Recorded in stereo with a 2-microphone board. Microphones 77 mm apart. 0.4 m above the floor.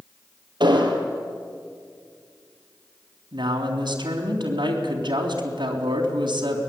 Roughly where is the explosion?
Right.